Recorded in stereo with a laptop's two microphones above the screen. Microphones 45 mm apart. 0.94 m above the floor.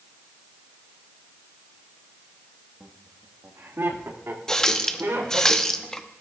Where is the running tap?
15° left (ahead or behind), 0.8 m.